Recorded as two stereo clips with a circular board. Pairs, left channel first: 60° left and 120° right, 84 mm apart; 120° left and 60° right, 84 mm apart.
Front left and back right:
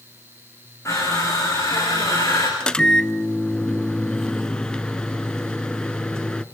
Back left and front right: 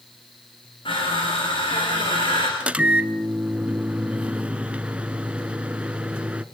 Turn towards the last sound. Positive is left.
turn(degrees=-5)